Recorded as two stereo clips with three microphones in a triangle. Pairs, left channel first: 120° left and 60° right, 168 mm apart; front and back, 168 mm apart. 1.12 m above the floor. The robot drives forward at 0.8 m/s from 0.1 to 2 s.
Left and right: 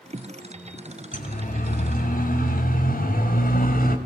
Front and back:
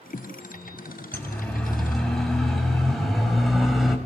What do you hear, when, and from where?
1.1 s a siren: 80° left, 8 m; by 4.0 s 90° left, 6 m